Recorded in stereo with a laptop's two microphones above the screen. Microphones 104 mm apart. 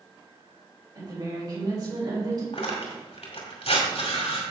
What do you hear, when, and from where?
0.9 s a woman speaking: 45° right (ahead or behind), 3.5 m
2.5 s tearing paper: 75° left (ahead or behind), 2 m